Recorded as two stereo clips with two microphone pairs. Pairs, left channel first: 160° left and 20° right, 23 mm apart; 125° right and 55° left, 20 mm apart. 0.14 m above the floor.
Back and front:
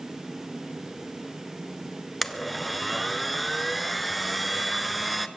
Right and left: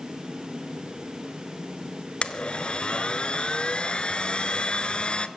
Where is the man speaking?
No man speaking in this recording.